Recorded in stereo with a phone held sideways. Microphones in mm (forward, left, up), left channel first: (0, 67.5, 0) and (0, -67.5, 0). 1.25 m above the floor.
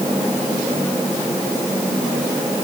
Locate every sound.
Only background noise.